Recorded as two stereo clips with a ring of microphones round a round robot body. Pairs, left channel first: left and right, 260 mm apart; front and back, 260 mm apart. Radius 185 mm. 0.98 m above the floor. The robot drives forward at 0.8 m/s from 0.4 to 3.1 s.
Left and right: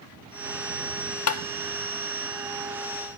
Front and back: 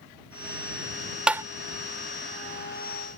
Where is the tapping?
95° left; by 1.4 s 105° left.